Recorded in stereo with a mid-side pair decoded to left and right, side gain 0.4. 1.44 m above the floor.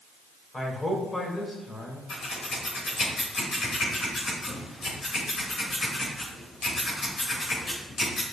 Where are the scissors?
60° left, 2.5 m.